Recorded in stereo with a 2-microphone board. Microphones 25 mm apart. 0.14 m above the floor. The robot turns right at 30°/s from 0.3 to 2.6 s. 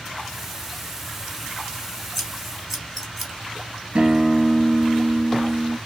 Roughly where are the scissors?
Centre.